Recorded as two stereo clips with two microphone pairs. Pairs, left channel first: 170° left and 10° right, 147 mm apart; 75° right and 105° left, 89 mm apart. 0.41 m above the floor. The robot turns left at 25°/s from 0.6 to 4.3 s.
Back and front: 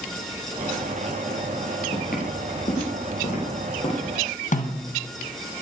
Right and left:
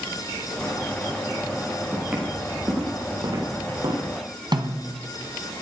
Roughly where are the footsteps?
Behind.